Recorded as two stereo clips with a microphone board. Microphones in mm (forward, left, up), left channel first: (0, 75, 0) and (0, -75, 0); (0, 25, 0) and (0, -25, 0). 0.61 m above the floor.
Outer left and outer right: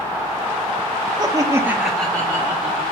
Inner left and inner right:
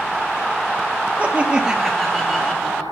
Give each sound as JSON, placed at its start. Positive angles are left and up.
{"t": 1.2, "sound": "laughter", "side_deg": -30, "distance_m": 1.2}